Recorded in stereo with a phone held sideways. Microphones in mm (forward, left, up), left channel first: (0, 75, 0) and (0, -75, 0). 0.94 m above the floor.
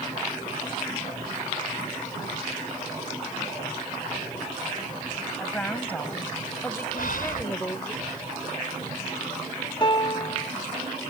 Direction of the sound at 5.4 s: 10° left (ahead or behind).